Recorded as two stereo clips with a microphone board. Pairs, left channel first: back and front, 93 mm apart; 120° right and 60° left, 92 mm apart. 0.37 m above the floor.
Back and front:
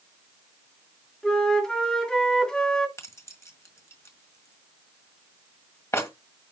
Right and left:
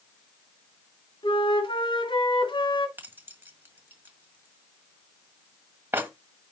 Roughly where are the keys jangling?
Behind left.